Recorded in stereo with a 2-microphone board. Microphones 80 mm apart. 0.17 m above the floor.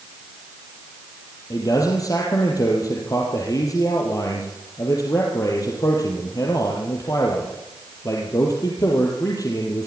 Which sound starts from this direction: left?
A man speaking, at 1.5 s.